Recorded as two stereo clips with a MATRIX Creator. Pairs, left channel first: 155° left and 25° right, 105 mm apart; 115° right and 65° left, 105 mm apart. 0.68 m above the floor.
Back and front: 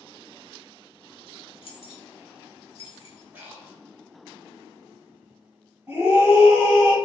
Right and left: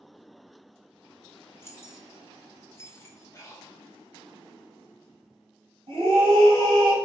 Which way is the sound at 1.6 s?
175° right.